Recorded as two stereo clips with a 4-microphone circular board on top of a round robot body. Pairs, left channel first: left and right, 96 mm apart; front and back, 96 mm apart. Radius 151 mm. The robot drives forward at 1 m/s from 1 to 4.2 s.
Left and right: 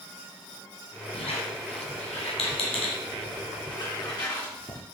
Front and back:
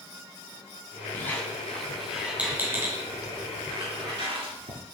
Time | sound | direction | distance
1.1 | a squeak | 65° left | 2 m